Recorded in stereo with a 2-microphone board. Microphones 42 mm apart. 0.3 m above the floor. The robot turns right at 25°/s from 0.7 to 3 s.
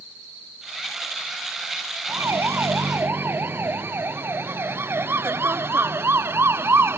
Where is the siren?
75° right (ahead or behind); by 7.0 s 70° right (ahead or behind).